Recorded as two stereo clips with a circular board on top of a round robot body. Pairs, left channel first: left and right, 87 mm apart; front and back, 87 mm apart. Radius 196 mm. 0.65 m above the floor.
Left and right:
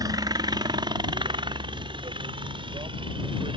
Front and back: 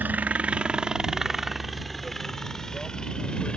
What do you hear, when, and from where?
0.0 s a helicopter: 115° right; by 3.6 s 80° right